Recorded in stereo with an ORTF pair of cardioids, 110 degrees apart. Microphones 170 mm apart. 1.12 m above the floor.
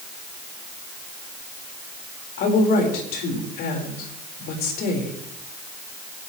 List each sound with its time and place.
2.4 s a woman speaking: 65° left, 4.5 m